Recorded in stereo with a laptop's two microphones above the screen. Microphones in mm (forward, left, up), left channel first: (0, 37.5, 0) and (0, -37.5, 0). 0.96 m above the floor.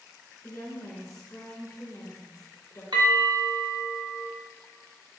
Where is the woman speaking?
45° left (ahead or behind), 1.0 m.